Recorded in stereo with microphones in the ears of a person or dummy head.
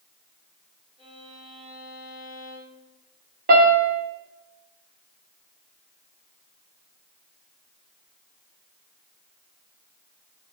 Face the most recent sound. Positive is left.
turn(degrees=-50)  # may be behind; listen again after turning